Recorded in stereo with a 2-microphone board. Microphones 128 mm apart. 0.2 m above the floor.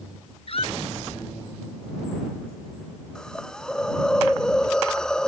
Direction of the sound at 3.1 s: 5° left (ahead or behind).